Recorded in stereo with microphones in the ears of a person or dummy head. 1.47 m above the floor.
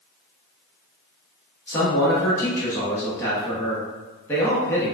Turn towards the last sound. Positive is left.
turn(degrees=10)  # may be behind; listen again after turning